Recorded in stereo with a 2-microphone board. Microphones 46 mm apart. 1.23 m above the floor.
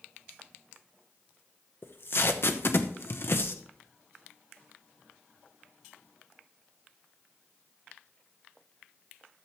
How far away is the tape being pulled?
About 0.9 m.